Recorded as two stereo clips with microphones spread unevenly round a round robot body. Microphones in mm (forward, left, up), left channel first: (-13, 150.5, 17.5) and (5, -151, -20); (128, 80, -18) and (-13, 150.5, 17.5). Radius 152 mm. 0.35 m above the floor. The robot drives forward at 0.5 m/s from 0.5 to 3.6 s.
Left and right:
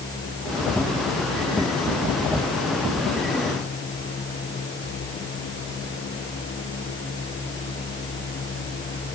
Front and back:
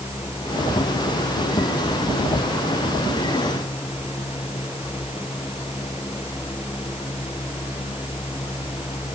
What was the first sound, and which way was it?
Only background noise.